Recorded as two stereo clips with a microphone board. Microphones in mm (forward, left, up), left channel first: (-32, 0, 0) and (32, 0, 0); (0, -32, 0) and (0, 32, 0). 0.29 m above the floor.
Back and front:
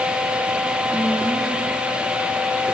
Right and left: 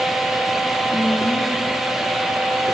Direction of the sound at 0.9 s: 90° left.